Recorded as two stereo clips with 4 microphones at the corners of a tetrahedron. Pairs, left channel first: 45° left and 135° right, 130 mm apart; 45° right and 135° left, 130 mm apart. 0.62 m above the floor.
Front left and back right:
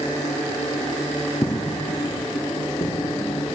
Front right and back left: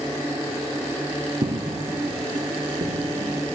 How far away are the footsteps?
About 1.8 m.